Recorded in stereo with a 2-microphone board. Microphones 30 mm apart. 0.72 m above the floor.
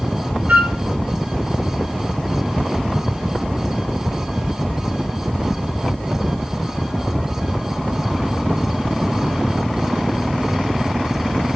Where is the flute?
75° right (ahead or behind), 0.7 m.